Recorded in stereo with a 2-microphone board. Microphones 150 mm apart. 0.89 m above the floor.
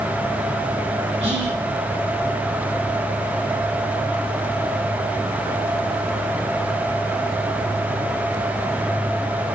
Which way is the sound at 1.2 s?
45° right (ahead or behind).